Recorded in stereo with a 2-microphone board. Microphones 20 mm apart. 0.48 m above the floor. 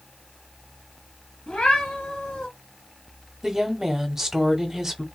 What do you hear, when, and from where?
1.5 s a cat meowing: 65° left (ahead or behind), 1.7 m
3.4 s a woman speaking: 20° right (ahead or behind), 0.9 m